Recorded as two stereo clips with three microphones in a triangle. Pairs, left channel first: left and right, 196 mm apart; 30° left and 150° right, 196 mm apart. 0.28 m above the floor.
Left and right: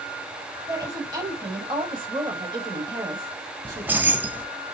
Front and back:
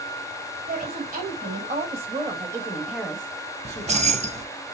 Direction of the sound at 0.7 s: 155° right.